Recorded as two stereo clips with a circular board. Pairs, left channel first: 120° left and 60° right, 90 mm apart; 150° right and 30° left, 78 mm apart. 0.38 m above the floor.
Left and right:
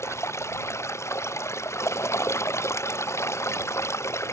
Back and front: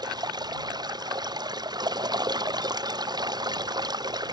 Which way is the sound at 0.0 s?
60° left.